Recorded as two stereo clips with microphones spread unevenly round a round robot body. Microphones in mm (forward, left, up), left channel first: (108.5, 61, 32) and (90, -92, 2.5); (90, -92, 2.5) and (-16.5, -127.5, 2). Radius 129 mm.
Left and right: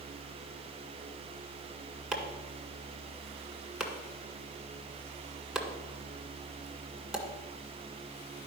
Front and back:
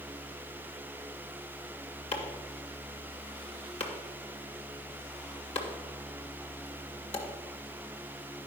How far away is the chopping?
About 2.0 m.